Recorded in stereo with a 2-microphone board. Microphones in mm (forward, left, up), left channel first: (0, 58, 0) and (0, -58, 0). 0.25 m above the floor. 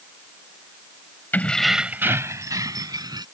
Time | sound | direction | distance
1.3 | keys jangling | 15° left (ahead or behind) | ?